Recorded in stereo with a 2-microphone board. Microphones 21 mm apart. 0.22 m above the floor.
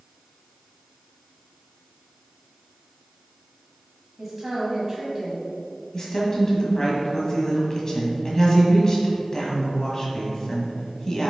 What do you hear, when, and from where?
4.2 s a woman speaking: 30° right (ahead or behind), 1.4 m
5.9 s a woman speaking: 30° left (ahead or behind), 1.5 m